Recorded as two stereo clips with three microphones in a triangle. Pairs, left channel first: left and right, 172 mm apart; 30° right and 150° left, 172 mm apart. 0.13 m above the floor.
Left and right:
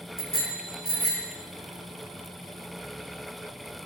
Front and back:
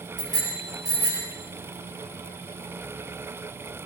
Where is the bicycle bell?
145° right, 7 m; by 1.3 s 135° right, 7.5 m.